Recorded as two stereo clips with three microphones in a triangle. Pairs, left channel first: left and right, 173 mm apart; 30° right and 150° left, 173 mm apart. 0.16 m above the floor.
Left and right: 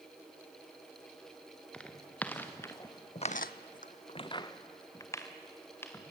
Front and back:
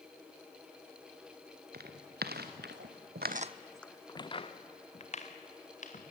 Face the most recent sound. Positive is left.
turn(degrees=15)